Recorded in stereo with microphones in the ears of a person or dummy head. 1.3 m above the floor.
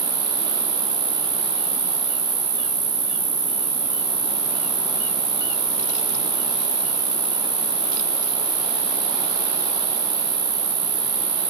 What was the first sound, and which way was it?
An insect, 30° right (ahead or behind).